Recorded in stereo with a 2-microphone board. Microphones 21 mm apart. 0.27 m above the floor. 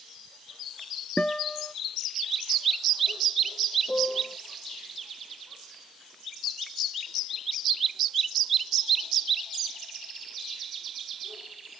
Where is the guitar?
55° left (ahead or behind).